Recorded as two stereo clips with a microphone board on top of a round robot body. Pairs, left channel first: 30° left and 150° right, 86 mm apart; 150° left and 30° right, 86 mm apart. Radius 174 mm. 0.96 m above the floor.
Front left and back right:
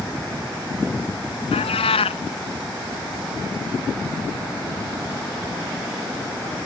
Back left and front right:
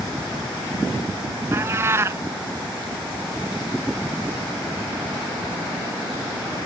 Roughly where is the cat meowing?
Ahead left.